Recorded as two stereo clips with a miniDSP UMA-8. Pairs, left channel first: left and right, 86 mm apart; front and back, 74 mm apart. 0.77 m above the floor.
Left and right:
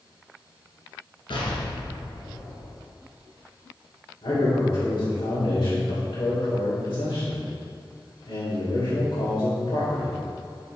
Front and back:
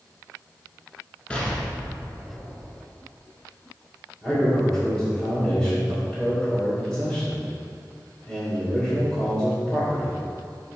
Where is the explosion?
75° left, 1.9 m.